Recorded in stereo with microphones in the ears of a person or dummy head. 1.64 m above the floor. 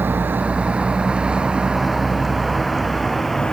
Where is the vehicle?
5° right (ahead or behind); by 3.5 s 5° left (ahead or behind).